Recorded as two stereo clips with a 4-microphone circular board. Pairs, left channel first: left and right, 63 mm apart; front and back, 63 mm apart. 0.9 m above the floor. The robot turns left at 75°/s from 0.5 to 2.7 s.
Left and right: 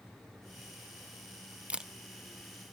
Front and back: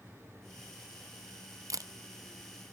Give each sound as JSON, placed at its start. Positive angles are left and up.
{"t": 1.7, "sound": "a camera shutter", "azimuth_deg": -160, "distance_m": 0.6}